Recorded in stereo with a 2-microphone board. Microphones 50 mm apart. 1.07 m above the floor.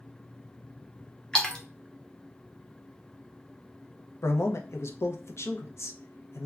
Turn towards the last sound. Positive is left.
turn(degrees=60)  # may be behind; listen again after turning